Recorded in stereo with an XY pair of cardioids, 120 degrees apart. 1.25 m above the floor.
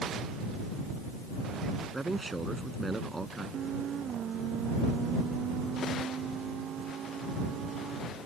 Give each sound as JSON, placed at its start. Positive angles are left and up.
{"t": 1.9, "sound": "a man speaking", "azimuth_deg": -15}